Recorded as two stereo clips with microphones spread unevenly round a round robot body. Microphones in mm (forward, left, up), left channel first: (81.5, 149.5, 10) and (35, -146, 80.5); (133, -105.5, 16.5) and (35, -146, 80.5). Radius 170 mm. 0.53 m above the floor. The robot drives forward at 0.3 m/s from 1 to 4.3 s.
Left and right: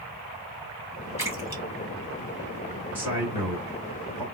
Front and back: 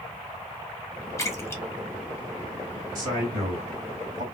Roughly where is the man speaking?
Behind.